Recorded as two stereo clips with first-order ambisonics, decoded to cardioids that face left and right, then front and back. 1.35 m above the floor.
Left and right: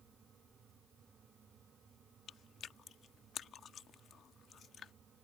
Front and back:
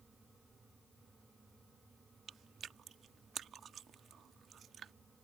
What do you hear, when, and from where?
2.3 s chewing: 135° left